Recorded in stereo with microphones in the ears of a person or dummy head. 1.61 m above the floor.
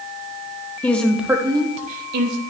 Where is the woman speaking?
5° left (ahead or behind), 1.0 m; by 2.4 s 65° right (ahead or behind), 1.0 m.